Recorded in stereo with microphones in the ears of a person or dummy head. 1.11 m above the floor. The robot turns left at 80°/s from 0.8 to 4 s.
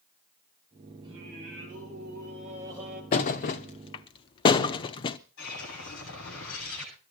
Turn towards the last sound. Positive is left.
turn(degrees=75)  # may be behind; listen again after turning